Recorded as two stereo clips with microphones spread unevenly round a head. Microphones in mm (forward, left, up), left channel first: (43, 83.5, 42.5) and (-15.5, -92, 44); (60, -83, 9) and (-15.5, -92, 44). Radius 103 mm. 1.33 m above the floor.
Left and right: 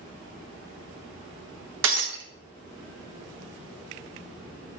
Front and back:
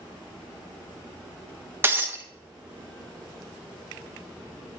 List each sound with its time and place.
1.8 s breaking glass: 130° right, 0.7 m